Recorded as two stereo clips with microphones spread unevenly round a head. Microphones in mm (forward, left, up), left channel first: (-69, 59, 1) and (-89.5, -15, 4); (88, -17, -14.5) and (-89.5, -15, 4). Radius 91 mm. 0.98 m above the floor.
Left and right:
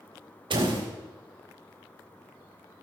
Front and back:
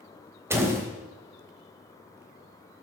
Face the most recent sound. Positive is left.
turn(degrees=-105)